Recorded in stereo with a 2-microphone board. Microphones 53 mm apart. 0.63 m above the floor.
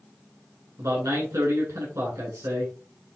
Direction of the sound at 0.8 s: 65° right (ahead or behind).